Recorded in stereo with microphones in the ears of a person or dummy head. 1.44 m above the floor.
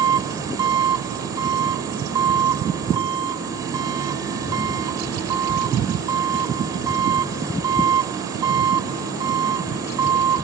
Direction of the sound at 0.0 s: 20° right (ahead or behind).